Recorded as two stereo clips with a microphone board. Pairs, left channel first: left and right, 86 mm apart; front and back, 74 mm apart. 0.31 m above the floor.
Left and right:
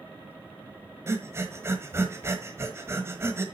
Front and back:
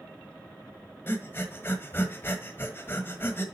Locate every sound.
1.1 s breathing: 45° right, 1.3 m